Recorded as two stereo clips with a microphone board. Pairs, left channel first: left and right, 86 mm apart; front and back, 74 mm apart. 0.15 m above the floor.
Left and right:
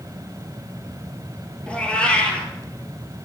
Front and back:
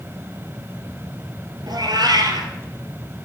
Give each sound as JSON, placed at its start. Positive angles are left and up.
{"t": 1.7, "sound": "a cat meowing", "azimuth_deg": 165, "distance_m": 1.5}